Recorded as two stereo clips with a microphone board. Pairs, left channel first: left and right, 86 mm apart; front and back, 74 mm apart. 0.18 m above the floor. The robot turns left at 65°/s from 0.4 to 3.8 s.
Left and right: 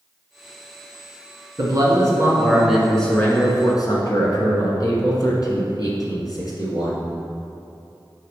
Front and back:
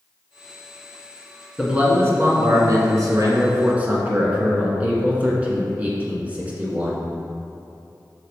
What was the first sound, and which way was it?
A man speaking, 100° right.